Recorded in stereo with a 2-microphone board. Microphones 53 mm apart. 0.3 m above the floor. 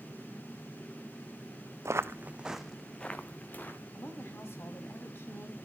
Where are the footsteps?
60° right (ahead or behind), 0.8 m; by 3.8 s 40° left (ahead or behind), 1.6 m.